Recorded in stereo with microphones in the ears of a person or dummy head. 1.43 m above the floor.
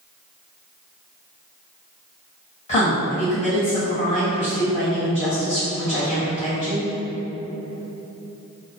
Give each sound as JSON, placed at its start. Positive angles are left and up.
{"t": 2.7, "sound": "a woman speaking", "side_deg": 45, "distance_m": 1.6}